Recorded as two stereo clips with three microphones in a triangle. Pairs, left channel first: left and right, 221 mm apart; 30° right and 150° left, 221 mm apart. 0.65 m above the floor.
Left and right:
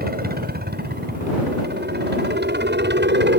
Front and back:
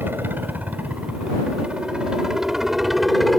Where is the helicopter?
130° right; by 3.4 s 120° right.